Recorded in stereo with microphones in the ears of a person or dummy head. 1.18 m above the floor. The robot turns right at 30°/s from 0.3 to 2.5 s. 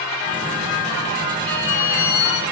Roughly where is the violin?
Centre.